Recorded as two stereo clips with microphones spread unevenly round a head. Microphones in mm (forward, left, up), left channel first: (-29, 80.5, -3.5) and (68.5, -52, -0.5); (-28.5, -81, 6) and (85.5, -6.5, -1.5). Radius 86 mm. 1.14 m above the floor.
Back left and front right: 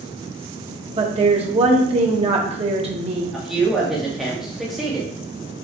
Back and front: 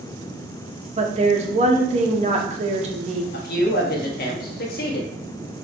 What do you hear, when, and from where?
1.0 s a woman speaking: straight ahead, 1.7 m
3.3 s a man speaking: 145° right, 1.5 m